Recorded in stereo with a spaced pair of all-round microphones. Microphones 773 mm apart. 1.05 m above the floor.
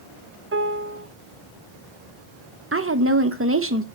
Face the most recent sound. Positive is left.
turn(degrees=-20)  # may be behind; listen again after turning